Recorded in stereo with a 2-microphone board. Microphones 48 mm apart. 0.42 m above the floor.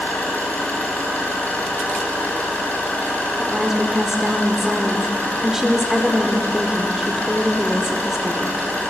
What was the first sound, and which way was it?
An engine running, 35° left (ahead or behind).